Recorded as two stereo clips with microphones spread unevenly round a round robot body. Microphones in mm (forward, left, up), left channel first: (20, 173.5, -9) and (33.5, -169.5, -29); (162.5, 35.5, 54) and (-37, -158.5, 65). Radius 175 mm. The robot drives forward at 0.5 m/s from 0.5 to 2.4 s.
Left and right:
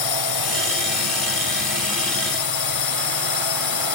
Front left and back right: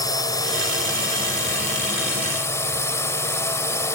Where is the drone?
125° left.